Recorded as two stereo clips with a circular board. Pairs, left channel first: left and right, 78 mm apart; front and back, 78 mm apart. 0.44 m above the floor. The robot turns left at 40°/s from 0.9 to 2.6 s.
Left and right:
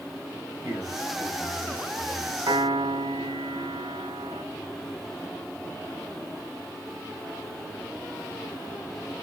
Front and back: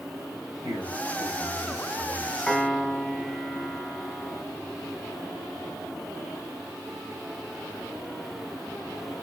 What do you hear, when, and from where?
0.6 s a man speaking: 145° right, 2.5 m; by 2.6 s 150° left, 2.5 m
2.5 s a piano: 80° right, 0.8 m; by 4.4 s 85° right, 0.8 m